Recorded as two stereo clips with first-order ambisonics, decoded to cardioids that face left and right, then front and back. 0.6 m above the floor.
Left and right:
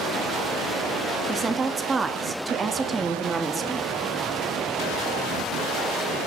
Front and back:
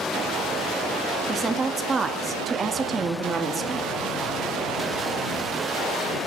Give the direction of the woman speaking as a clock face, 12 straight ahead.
5 o'clock.